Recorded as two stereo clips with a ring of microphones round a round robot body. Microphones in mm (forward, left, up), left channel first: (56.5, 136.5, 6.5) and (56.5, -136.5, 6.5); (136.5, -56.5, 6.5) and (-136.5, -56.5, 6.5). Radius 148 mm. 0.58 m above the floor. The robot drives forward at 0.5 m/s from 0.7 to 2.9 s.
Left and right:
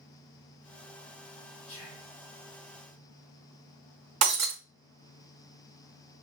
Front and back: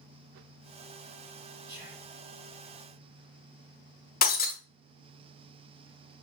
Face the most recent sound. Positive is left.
turn(degrees=-60)